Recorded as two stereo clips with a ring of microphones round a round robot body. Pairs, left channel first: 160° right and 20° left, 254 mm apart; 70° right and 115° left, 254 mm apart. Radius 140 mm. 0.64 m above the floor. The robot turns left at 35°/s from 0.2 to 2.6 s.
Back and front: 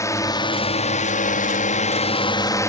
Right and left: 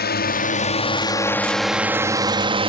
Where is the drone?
85° right; by 2.7 s 140° left.